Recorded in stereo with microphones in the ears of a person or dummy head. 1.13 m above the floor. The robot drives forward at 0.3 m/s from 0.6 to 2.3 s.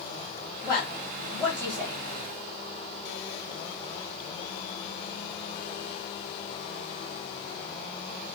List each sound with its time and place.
0.6 s a woman speaking: 10° right (ahead or behind), 1.6 m; by 2.0 s 15° right (ahead or behind), 1.2 m